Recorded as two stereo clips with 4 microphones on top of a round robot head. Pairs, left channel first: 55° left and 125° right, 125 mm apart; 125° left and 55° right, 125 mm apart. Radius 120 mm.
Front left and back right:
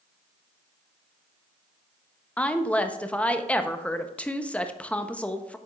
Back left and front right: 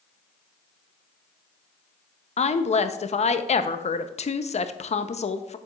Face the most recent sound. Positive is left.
turn(degrees=130)